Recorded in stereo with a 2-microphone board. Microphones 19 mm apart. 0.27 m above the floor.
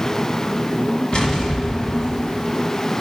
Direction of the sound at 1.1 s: 50° left (ahead or behind).